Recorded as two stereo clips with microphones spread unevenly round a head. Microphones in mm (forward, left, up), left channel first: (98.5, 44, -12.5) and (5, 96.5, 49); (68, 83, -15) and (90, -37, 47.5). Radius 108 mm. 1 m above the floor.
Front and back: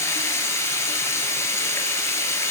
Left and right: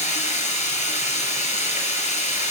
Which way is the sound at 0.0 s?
60° left.